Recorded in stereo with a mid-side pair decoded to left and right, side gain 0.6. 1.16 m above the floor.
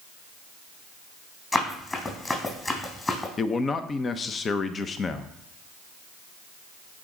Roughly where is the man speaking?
Ahead left.